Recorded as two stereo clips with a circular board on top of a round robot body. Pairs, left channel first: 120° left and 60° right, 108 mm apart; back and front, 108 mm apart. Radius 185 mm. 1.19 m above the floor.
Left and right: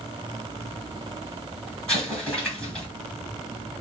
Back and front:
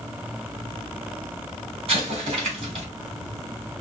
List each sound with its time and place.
1.9 s an explosion: 35° left, 2.5 m